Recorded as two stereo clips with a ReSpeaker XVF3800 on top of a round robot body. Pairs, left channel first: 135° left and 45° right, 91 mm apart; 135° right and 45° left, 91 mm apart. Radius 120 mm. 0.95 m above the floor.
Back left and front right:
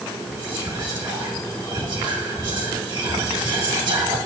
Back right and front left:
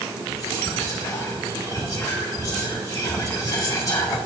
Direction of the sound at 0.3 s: 80° right.